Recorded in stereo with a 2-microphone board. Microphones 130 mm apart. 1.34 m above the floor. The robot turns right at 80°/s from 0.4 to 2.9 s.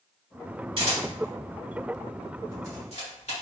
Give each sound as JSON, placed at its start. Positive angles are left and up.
{"t": 0.8, "sound": "a camera shutter", "side_deg": -45, "distance_m": 1.8}